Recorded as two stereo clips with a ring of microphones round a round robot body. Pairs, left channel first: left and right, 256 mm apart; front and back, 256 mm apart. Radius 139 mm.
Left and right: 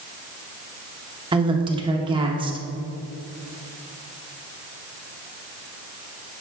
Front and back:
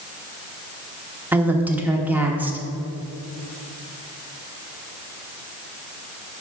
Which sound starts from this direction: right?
A woman speaking, at 1.3 s.